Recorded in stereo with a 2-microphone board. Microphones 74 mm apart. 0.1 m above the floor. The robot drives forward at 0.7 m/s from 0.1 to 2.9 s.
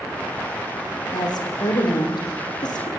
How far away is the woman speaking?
About 6 m.